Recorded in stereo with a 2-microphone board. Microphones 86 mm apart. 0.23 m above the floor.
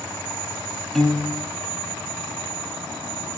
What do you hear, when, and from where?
0.9 s a piano: centre (ahead or behind), 0.7 m